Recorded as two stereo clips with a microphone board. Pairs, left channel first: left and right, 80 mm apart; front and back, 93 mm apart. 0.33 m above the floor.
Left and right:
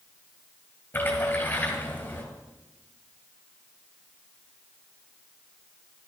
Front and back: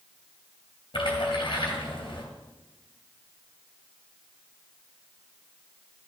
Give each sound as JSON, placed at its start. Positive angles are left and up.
{"t": 0.9, "sound": "a splash", "azimuth_deg": 25, "distance_m": 2.5}